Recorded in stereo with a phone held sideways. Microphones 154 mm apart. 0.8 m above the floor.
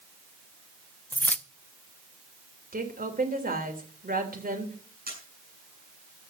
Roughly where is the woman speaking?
Right.